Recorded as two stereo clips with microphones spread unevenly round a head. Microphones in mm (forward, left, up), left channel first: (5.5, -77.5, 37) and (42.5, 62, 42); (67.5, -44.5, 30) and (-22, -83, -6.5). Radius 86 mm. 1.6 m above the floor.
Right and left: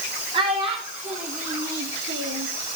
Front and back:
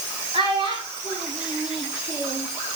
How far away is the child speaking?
About 3.5 m.